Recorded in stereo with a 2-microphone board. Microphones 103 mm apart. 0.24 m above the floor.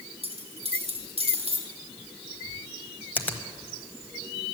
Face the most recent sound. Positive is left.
turn(degrees=15)  # may be behind; listen again after turning